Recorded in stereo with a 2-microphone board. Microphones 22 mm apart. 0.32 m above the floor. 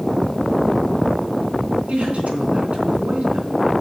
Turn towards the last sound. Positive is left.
turn(degrees=-65)  # may be behind; listen again after turning